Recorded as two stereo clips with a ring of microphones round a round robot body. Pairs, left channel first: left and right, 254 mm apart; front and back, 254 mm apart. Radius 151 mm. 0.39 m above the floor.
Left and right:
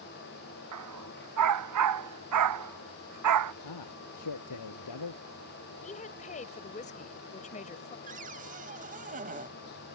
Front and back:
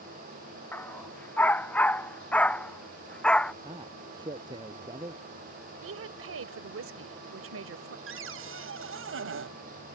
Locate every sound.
0.7 s a dog barking: 80° right; by 3.5 s 85° right
3.6 s a man speaking: 105° left
5.8 s a woman speaking: 150° left
8.1 s a cupboard door: 150° right